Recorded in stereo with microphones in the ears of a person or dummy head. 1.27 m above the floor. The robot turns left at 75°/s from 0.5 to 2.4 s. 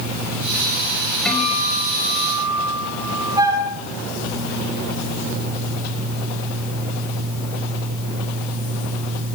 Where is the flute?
30° right (ahead or behind), 2.5 m.